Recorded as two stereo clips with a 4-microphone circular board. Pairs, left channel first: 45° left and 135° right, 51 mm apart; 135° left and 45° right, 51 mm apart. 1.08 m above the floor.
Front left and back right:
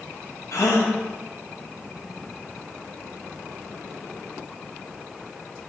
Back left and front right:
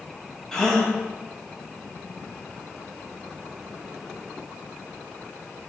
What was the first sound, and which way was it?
A gasp, 55° left.